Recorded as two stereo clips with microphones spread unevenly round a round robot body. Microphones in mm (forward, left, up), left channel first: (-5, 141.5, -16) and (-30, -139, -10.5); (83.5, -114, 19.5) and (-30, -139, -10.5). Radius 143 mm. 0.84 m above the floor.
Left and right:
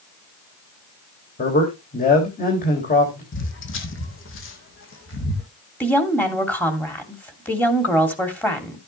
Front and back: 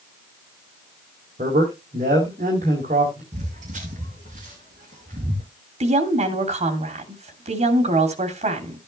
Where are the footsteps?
130° left, 2 m.